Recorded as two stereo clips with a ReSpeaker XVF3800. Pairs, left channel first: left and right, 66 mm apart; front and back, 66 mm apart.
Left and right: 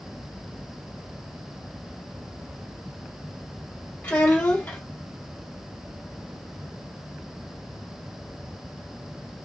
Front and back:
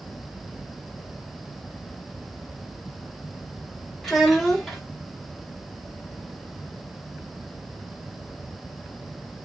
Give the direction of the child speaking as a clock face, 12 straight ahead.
9 o'clock.